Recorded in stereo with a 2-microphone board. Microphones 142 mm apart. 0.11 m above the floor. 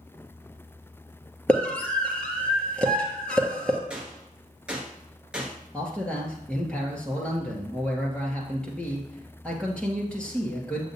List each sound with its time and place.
1.5 s a scream: 5° left (ahead or behind), 1.6 m
3.9 s a gunshot: 5° right (ahead or behind), 1.4 m
5.7 s a man speaking: 5° left (ahead or behind), 2.0 m